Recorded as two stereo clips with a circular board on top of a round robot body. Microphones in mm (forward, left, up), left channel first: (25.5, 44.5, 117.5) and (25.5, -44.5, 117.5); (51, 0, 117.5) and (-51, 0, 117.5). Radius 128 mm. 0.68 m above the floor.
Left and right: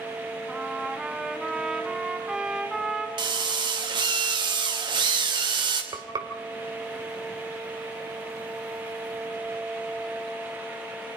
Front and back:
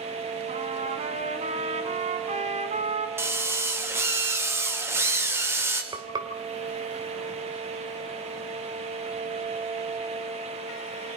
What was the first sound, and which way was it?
A trumpet, 175° right.